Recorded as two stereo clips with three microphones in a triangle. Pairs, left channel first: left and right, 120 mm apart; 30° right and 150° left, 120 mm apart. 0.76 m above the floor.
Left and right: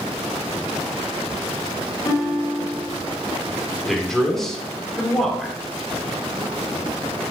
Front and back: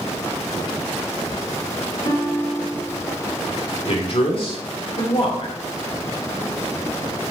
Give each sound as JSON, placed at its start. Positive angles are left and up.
{"t": 2.0, "sound": "a guitar", "azimuth_deg": 30, "distance_m": 1.9}
{"t": 3.9, "sound": "a man speaking", "azimuth_deg": 5, "distance_m": 2.5}